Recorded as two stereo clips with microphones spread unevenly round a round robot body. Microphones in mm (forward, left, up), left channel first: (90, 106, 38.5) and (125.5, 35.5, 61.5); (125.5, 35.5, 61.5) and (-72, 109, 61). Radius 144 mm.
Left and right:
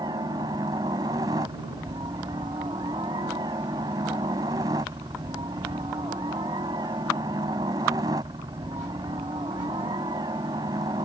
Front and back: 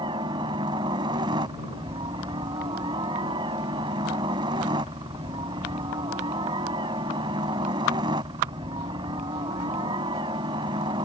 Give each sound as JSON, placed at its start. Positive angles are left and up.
{"t": 0.0, "sound": "a helicopter", "azimuth_deg": -130}